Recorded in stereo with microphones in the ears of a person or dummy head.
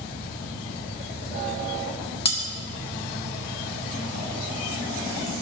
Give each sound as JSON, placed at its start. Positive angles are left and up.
{"t": 2.2, "sound": "cutlery clinking", "side_deg": 25, "distance_m": 1.1}